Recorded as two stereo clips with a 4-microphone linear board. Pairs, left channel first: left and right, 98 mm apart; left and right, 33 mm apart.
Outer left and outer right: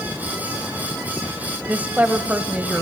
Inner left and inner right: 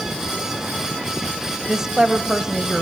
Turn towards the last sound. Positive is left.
turn(degrees=-15)  # may be behind; listen again after turning